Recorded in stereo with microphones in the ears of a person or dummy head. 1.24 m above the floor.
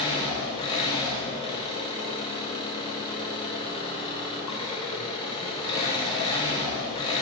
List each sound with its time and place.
0.0 s an engine running: 25° left (ahead or behind), 0.9 m